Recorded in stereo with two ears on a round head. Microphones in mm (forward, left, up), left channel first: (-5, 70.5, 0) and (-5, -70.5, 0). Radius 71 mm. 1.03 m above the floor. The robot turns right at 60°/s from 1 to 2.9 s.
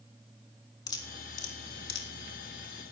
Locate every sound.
0.9 s dripping: 25° left (ahead or behind), 1.9 m; by 2.1 s 75° left (ahead or behind), 1.9 m